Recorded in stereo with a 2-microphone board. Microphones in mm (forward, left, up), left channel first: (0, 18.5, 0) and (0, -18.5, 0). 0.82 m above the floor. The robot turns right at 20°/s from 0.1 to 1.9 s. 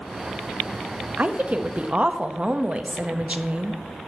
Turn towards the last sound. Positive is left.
turn(degrees=-30)  # may be behind; listen again after turning